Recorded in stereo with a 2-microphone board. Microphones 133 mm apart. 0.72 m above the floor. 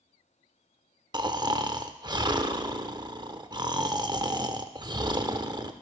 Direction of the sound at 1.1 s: 35° right (ahead or behind).